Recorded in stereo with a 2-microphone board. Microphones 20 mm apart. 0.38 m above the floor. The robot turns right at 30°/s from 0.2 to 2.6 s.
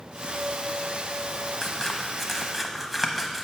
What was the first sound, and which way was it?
Scissors, 20° left (ahead or behind).